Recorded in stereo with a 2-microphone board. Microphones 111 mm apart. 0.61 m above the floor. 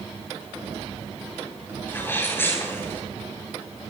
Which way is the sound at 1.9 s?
20° left (ahead or behind).